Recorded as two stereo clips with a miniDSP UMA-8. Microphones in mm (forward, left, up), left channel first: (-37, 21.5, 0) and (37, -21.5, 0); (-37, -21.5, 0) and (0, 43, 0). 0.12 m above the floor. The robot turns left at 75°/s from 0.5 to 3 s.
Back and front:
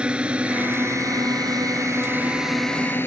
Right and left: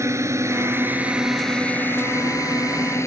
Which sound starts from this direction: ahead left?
A drone, at 0.0 s.